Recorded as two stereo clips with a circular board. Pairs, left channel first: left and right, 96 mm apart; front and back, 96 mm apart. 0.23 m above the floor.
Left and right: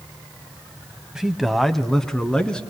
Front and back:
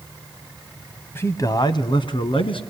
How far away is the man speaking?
About 1.0 m.